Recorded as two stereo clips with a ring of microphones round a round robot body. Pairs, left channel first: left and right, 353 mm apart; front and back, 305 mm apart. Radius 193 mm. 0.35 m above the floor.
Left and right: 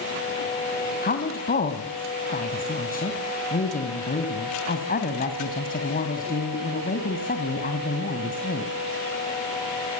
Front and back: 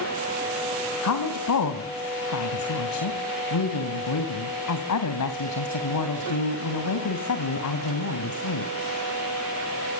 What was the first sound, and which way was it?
A woman speaking, 25° left.